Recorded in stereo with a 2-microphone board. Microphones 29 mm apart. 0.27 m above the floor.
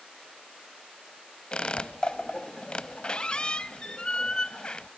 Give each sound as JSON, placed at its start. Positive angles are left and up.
{"t": 1.5, "sound": "a squeak", "side_deg": 25, "distance_m": 0.7}